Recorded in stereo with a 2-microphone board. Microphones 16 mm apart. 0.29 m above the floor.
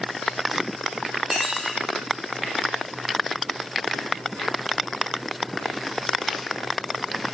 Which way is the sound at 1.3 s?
20° right (ahead or behind).